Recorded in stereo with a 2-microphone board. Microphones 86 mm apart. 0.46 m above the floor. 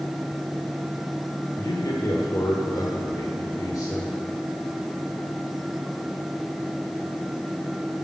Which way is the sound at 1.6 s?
45° left (ahead or behind).